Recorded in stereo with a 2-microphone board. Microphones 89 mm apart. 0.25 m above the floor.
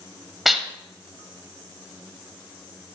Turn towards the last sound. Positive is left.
turn(degrees=0)  # may be behind; listen again after turning